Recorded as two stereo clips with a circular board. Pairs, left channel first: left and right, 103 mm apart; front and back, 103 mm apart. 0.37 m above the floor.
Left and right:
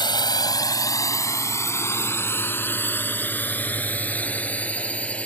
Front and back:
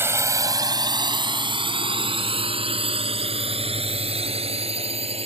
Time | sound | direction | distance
0.0 | a drone | 120° left | ?